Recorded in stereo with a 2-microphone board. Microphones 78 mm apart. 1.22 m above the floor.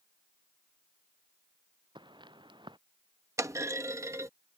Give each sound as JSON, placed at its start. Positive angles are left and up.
{"t": 1.9, "sound": "footsteps", "side_deg": -80}
{"t": 3.4, "sound": "a clunk", "side_deg": -40}